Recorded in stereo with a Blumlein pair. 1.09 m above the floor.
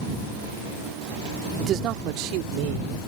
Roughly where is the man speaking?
Ahead right.